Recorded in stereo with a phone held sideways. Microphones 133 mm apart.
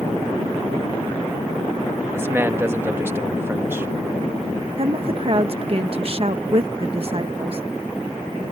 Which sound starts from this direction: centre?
A man speaking, at 2.1 s.